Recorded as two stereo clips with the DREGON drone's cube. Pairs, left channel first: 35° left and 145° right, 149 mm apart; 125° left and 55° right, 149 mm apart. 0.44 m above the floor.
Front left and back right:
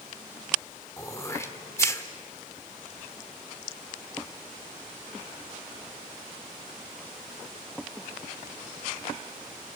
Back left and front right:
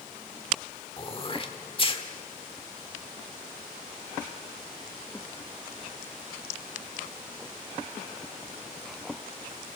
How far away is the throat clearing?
About 1.5 m.